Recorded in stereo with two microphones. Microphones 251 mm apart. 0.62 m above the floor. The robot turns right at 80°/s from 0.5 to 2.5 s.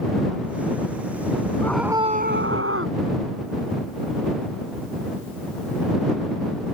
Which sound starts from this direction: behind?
A scream, at 1.6 s.